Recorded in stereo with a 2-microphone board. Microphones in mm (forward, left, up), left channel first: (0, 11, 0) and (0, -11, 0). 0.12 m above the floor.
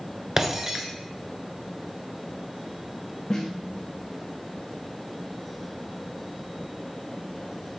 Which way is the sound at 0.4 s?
25° right (ahead or behind).